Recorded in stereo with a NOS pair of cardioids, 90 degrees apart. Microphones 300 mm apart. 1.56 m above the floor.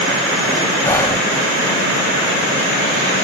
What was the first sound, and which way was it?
Whispering, 10° left.